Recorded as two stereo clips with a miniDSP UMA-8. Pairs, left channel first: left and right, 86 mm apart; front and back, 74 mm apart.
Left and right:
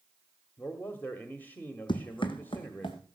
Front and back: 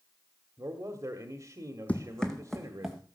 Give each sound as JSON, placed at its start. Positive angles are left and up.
{"t": 0.6, "sound": "a man speaking", "azimuth_deg": 150, "distance_m": 1.5}
{"t": 1.9, "sound": "running footsteps", "azimuth_deg": 70, "distance_m": 1.1}